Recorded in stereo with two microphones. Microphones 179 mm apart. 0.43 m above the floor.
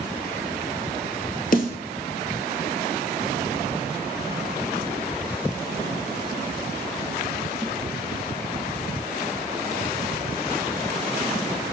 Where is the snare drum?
55° left (ahead or behind), 1.7 m.